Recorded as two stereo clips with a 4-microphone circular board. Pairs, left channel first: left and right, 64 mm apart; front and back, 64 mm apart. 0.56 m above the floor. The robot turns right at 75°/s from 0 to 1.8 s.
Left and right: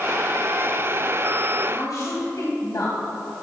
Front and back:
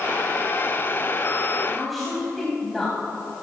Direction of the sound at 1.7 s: 80° left.